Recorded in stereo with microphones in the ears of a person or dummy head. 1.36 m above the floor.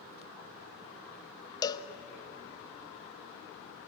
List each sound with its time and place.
1.6 s a cowbell: 25° left (ahead or behind), 0.9 m